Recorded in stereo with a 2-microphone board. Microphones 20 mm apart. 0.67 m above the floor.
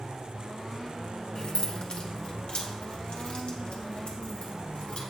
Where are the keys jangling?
50° left (ahead or behind), 1.3 m; by 5.0 s 85° left, 3 m.